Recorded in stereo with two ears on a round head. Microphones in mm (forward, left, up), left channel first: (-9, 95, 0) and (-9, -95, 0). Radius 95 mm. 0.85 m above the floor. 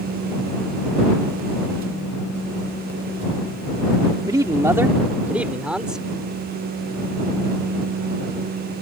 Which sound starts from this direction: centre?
A man speaking, at 4.3 s.